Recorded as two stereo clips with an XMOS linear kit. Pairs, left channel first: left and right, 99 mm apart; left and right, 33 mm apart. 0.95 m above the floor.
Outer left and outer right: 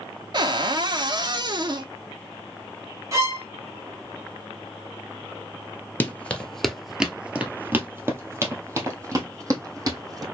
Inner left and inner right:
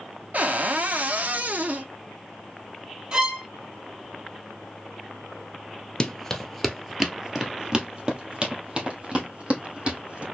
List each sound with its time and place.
0.3 s a cupboard door: 50° right (ahead or behind), 0.7 m
3.1 s a violin: 30° right (ahead or behind), 1.3 m
6.0 s running footsteps: 20° left (ahead or behind), 0.9 m; by 10.2 s 35° right (ahead or behind), 2.5 m